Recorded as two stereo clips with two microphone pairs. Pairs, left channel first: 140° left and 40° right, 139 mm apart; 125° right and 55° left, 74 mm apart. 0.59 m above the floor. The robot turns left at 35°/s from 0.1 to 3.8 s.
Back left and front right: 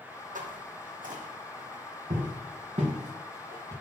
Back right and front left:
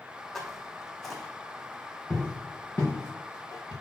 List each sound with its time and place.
0.3 s footsteps: 40° right, 1.4 m; by 3.7 s 100° right, 4 m